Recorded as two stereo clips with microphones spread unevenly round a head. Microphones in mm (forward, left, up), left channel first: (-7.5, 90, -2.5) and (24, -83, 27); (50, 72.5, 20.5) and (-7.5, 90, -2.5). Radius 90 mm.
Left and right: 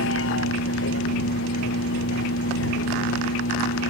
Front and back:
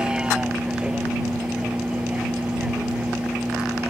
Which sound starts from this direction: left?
A vehicle, at 0.0 s.